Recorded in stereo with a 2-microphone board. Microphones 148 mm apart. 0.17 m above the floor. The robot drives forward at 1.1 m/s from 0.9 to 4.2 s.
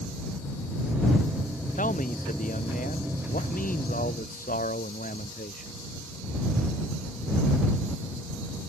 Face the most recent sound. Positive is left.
turn(degrees=70)  # may be behind; listen again after turning